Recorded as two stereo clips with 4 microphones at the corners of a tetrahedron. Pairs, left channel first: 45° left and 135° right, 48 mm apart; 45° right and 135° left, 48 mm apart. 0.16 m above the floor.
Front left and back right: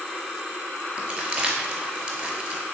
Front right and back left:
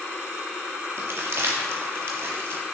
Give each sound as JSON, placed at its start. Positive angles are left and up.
{"t": 1.0, "sound": "crumpling", "azimuth_deg": 160, "distance_m": 0.7}